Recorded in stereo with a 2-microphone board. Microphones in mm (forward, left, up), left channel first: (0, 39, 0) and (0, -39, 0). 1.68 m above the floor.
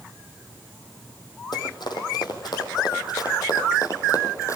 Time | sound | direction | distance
1.5 | running footsteps | 70° left (ahead or behind) | 4.5 m